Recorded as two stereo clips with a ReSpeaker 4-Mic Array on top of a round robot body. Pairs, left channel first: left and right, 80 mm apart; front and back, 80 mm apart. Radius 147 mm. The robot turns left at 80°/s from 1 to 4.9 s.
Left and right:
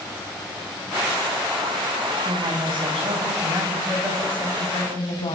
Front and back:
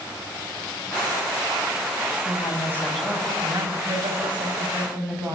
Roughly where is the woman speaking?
Ahead right.